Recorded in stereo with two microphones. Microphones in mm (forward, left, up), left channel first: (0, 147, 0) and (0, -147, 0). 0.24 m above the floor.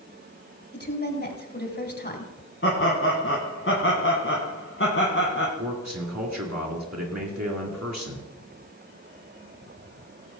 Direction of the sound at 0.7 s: 35° left (ahead or behind).